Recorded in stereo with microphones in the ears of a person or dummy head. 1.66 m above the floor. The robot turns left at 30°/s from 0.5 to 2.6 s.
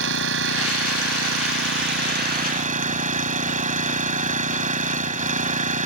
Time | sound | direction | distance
0.0 | an engine running | 75° right | ?